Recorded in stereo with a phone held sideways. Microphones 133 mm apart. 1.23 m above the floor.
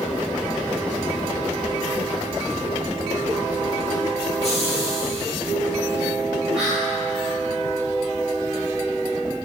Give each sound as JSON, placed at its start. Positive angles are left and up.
{"t": 4.4, "sound": "laughter", "side_deg": 50, "distance_m": 2.5}
{"t": 6.5, "sound": "whispering", "side_deg": 0, "distance_m": 2.5}